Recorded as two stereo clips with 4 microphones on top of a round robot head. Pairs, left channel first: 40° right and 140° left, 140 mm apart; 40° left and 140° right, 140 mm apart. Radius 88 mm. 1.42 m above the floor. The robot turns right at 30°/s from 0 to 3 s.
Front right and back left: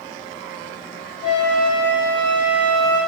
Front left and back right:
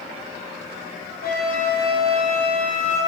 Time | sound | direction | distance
1.2 | a flute | 10° left | 6 m